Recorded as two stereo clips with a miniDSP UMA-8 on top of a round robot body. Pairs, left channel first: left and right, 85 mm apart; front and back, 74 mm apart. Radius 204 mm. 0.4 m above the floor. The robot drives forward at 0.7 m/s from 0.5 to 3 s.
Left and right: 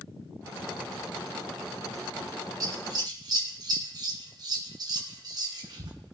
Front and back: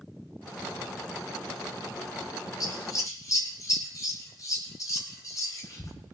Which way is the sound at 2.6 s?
40° right.